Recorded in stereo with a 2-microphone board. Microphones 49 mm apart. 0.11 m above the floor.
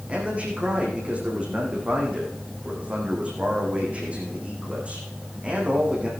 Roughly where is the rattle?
I don't hear a rattle.